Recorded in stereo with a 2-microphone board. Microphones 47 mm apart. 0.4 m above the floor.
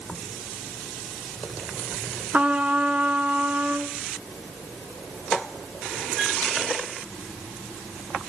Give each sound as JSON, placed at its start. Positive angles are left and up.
{"t": 2.3, "sound": "a trumpet", "side_deg": -30, "distance_m": 0.8}